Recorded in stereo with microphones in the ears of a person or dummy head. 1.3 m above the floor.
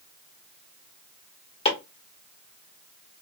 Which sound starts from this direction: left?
Chopping, at 1.6 s.